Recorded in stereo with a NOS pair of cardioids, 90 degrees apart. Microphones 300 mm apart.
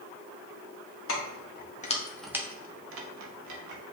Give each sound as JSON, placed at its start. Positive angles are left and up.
{"t": 1.1, "sound": "keys jangling", "azimuth_deg": 45, "distance_m": 1.5}